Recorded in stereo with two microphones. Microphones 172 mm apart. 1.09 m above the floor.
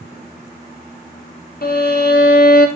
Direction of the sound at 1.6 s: 65° left (ahead or behind).